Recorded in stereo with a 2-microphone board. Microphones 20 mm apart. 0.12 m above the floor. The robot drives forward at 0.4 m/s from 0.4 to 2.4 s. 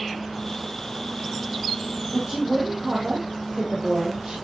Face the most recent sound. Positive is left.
turn(degrees=-60)  # may be behind; listen again after turning